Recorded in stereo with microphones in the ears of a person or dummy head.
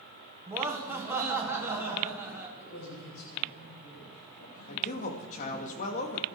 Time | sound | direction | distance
0.5 | laughter | 15° right (ahead or behind) | 2 m
2.6 | a man speaking | 80° left | 9 m
4.7 | a man speaking | 50° left (ahead or behind) | 2.5 m